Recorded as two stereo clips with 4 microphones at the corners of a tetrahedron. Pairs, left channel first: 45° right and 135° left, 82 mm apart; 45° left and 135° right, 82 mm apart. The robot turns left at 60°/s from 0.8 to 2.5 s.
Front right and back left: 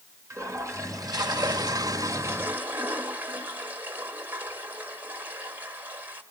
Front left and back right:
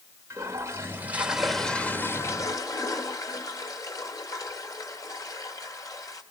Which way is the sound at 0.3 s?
175° left.